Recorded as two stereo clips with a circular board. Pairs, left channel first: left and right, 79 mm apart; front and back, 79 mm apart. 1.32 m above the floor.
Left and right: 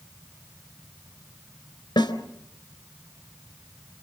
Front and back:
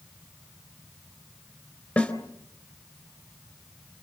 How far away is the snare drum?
About 3 m.